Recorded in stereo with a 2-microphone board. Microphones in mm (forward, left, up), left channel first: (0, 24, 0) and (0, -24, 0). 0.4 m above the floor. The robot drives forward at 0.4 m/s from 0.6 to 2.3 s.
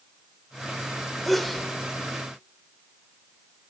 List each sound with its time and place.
1.2 s a sneeze: 5° left (ahead or behind), 1.1 m